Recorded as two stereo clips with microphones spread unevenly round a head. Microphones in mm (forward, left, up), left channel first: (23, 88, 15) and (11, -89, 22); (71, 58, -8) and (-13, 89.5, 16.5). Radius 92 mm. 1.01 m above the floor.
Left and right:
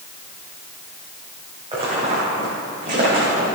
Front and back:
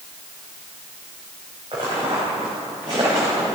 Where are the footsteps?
155° right, 3 m; by 3.5 s 140° right, 3.5 m.